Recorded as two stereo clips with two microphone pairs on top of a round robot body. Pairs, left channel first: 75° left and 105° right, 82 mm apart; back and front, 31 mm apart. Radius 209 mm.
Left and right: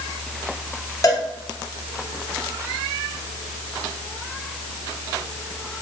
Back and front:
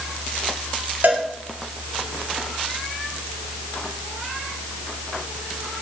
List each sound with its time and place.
1.0 s a cowbell: 30° left, 2 m